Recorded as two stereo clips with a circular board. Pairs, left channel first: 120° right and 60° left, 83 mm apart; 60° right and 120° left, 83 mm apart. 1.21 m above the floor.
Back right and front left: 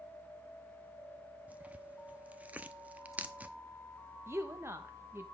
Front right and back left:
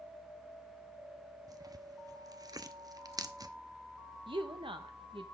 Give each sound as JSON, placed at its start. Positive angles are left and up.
{"t": 1.5, "sound": "tearing paper", "azimuth_deg": 125, "distance_m": 0.8}
{"t": 4.3, "sound": "a woman speaking", "azimuth_deg": 120, "distance_m": 1.4}